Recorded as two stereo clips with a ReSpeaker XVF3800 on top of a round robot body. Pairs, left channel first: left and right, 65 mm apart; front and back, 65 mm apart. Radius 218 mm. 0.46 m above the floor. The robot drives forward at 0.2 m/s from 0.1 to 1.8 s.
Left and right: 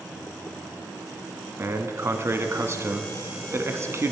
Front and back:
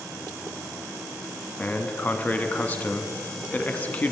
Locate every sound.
1.6 s a man speaking: 60° right, 1.0 m; by 4.1 s 65° right, 1.0 m